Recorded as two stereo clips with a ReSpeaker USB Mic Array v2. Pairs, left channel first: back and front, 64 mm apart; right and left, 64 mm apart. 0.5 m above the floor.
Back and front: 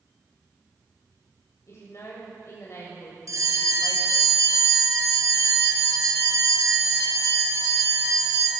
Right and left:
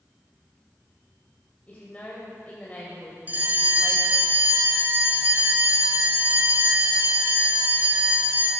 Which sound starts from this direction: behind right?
A woman speaking, at 1.7 s.